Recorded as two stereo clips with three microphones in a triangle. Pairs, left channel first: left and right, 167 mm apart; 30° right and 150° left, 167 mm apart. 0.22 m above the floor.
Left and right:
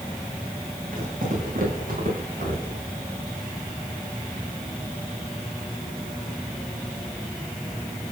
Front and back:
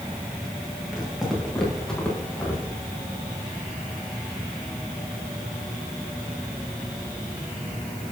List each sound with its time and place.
0.9 s footsteps: 125° right, 5 m; by 2.8 s 110° right, 4.5 m